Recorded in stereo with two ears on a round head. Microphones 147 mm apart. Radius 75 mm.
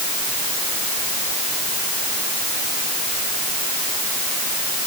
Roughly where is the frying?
No frying in this recording.